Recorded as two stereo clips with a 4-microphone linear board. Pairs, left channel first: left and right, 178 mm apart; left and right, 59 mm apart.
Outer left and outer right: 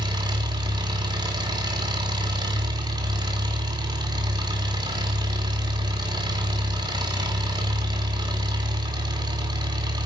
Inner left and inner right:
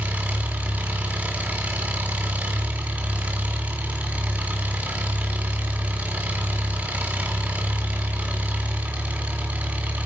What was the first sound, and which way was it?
An engine running, 25° right (ahead or behind).